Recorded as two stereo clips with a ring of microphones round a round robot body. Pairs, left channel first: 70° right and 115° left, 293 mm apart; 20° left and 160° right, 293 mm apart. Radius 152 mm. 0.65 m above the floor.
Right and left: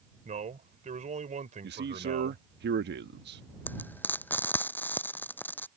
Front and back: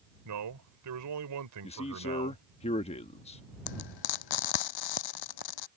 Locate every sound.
0.2 s a man speaking: straight behind
1.6 s a man speaking: 80° left
3.7 s frying: 15° left